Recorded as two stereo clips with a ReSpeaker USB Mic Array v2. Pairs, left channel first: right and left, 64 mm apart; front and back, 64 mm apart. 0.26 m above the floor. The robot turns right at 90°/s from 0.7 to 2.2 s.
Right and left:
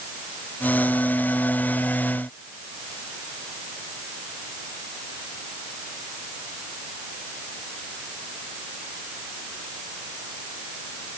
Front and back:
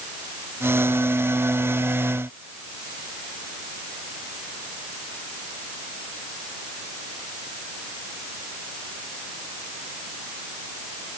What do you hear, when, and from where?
Only background noise.